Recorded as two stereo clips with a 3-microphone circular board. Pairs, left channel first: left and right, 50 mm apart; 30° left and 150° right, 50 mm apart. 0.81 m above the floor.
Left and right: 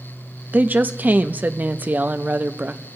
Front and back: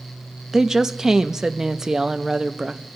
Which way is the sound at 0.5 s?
80° right.